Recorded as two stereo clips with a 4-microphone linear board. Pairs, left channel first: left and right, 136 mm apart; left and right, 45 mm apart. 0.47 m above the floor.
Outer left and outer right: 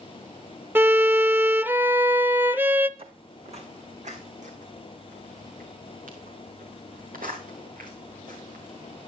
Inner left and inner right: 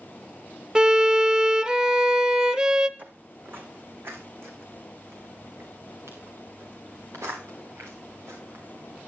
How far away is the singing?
I don't hear singing.